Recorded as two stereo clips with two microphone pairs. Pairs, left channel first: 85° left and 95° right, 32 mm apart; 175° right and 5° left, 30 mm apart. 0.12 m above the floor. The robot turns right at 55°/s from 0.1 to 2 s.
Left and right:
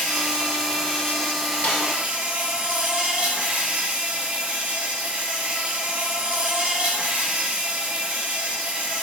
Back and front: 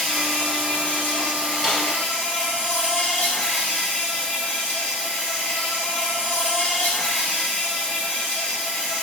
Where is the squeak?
No squeak in this recording.